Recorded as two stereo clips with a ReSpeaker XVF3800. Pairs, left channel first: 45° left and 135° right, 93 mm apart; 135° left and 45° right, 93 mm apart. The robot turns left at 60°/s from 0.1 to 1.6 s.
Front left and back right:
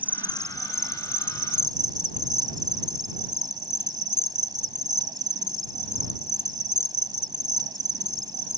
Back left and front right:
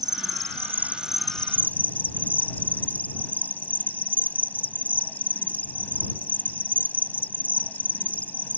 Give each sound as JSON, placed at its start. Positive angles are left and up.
{"t": 0.0, "sound": "an insect", "azimuth_deg": -65}